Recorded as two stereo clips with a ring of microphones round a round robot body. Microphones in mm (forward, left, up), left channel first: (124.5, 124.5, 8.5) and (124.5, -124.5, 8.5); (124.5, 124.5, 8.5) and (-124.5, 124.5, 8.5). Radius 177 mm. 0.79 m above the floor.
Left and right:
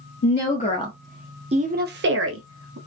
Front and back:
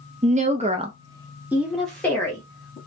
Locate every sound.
0.2 s a woman speaking: 125° left, 0.7 m; by 2.8 s 75° right, 0.9 m